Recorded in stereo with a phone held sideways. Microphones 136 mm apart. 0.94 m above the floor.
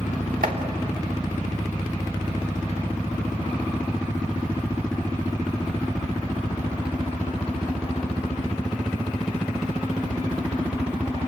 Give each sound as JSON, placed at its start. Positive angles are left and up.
{"t": 0.4, "sound": "chopping", "side_deg": -75, "distance_m": 3.0}